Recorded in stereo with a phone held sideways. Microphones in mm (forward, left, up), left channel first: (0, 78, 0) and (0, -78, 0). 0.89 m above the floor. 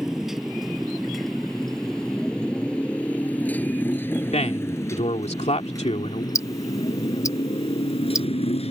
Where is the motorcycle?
5° right (ahead or behind); by 8.7 s 40° left (ahead or behind).